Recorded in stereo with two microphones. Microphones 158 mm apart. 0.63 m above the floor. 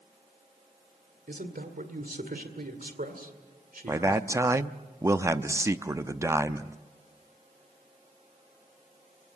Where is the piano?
No piano in this recording.